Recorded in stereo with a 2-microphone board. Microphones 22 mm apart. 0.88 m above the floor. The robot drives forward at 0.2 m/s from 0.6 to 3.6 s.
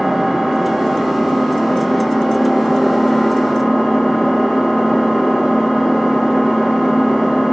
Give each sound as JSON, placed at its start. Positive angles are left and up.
{"t": 0.0, "sound": "an engine running", "side_deg": -15, "distance_m": 0.8}